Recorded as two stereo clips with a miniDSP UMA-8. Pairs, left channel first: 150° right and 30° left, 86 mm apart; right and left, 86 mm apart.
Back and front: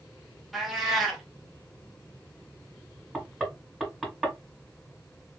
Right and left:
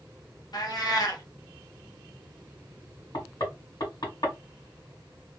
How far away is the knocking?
About 2 m.